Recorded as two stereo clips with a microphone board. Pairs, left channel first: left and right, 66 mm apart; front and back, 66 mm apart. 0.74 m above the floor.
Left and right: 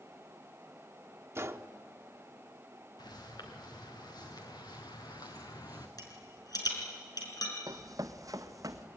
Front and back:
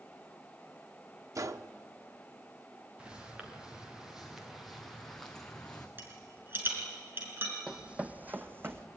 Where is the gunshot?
140° right, 0.8 m.